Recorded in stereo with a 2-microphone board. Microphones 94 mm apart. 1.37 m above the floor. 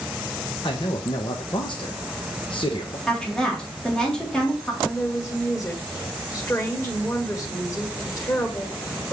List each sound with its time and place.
0.6 s a man speaking: 60° left (ahead or behind), 1.0 m
3.1 s a woman speaking: 5° left (ahead or behind), 3.5 m
4.8 s a woman speaking: 30° left (ahead or behind), 1.4 m